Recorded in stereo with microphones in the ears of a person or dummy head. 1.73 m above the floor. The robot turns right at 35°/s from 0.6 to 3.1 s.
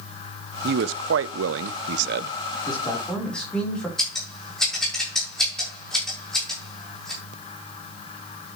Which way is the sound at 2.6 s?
25° left (ahead or behind).